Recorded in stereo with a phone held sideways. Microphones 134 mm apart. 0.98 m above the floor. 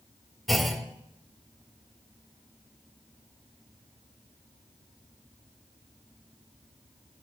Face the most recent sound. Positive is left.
turn(degrees=0)  # may be behind; listen again after turning